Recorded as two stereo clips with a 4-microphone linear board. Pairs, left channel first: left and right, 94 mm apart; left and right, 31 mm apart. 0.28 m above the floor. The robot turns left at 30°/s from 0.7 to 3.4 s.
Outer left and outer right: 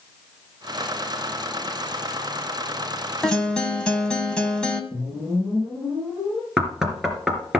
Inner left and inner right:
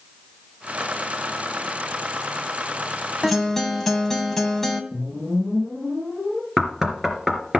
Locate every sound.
3.2 s a guitar: 5° left (ahead or behind), 2 m; by 4.8 s 10° left (ahead or behind), 2 m
4.9 s a whoosh: 10° left (ahead or behind), 8 m
6.6 s knocking: 5° right (ahead or behind), 3 m